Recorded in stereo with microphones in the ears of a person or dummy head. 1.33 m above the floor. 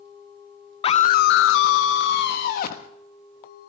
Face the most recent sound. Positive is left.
turn(degrees=60)  # may be behind; listen again after turning